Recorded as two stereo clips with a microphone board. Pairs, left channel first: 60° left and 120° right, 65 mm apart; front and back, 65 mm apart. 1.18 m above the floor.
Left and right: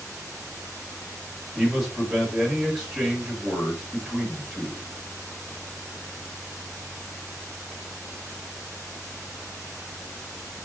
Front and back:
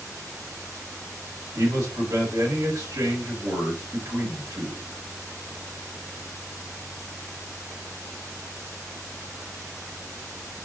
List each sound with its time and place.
1.6 s a man speaking: 155° left, 1.4 m